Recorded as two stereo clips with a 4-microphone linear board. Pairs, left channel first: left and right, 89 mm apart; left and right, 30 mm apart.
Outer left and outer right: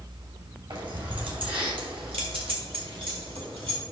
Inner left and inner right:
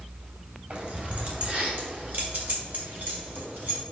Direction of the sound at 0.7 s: 60° right (ahead or behind).